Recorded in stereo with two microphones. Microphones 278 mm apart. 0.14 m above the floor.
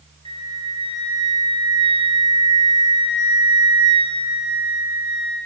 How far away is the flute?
About 4 m.